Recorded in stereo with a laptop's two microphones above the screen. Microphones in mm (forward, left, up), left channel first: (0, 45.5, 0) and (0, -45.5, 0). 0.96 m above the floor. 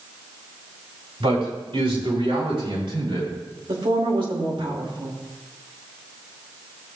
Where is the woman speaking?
65° right (ahead or behind), 2 m.